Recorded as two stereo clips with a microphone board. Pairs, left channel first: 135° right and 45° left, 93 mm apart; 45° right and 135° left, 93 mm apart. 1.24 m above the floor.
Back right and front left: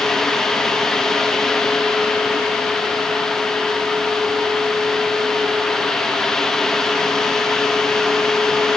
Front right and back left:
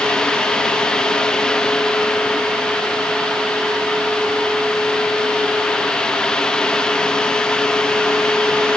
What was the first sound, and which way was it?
Only background noise.